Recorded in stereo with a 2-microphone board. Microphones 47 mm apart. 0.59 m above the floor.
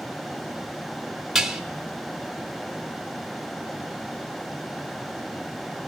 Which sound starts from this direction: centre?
Dishes clattering, at 1.4 s.